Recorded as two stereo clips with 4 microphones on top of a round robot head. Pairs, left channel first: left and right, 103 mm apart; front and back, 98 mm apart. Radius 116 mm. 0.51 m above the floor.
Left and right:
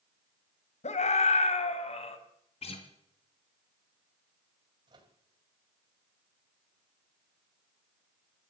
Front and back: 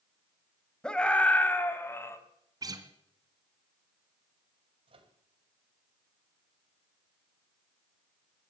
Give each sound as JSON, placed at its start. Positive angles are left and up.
{"t": 0.8, "sound": "a scream", "azimuth_deg": 85, "distance_m": 3.0}
{"t": 2.6, "sound": "a guitar", "azimuth_deg": 125, "distance_m": 2.5}
{"t": 4.9, "sound": "a microwave", "azimuth_deg": -145, "distance_m": 3.0}